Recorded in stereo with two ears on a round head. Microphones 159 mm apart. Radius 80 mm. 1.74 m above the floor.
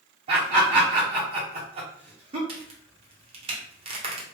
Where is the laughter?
35° right (ahead or behind), 0.8 m.